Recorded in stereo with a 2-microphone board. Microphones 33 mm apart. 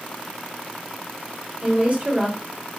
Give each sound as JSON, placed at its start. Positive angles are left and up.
{"t": 1.6, "sound": "a woman speaking", "side_deg": -40, "distance_m": 1.7}